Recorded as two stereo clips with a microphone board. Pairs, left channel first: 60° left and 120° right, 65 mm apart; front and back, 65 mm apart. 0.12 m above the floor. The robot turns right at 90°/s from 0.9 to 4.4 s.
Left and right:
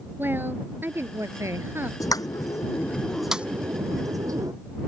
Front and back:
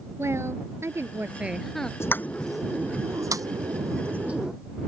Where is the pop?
40° left; by 4.5 s 105° right.